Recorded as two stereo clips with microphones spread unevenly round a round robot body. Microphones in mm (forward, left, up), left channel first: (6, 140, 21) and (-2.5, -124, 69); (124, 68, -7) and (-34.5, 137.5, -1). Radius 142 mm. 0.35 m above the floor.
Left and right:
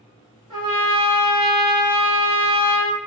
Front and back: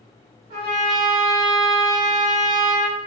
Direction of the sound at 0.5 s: 170° right.